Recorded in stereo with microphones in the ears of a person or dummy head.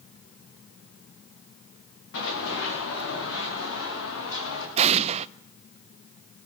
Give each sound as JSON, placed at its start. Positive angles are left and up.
{"t": 2.1, "sound": "running footsteps", "side_deg": 70, "distance_m": 7.5}
{"t": 4.8, "sound": "an explosion", "side_deg": -35, "distance_m": 0.6}